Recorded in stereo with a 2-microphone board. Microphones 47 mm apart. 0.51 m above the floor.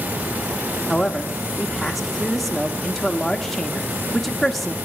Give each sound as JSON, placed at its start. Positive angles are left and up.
{"t": 0.9, "sound": "a man speaking", "side_deg": 5, "distance_m": 0.8}